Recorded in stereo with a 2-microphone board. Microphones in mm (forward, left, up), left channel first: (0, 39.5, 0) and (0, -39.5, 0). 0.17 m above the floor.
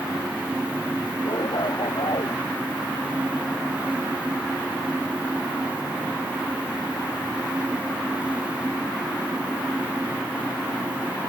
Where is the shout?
70° left (ahead or behind); by 2.4 s 75° left (ahead or behind).